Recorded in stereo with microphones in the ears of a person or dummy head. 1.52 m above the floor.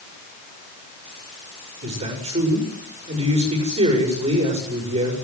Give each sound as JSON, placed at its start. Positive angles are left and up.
{"t": 1.8, "sound": "a man speaking", "side_deg": -35, "distance_m": 6.5}